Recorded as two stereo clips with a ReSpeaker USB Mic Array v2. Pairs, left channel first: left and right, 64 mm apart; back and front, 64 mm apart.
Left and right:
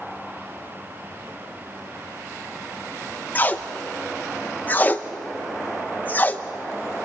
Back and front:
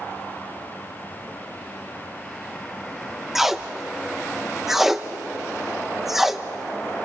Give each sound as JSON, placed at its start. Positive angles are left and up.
{"t": 3.4, "sound": "tape being pulled", "azimuth_deg": 80, "distance_m": 0.9}